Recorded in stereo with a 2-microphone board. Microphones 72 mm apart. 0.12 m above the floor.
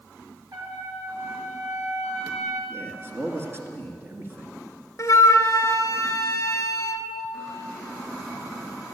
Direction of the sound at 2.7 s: 35° right (ahead or behind).